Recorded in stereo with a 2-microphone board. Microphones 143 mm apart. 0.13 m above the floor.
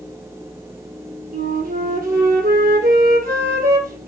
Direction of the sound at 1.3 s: 75° right (ahead or behind).